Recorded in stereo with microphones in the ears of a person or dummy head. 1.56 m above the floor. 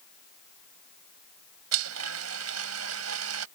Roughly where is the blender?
Right.